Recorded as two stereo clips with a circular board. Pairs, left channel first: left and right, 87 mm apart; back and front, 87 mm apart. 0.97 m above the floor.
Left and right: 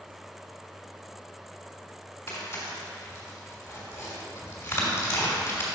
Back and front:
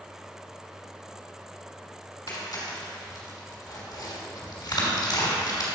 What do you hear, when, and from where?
2.3 s tearing paper: 145° left, 2.5 m